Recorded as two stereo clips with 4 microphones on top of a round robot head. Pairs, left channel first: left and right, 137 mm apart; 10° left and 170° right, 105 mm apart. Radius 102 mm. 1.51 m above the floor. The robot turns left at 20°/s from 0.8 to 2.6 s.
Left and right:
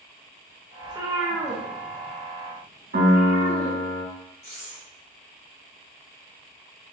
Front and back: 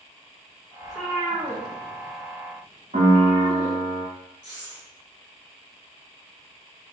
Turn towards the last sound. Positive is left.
turn(degrees=50)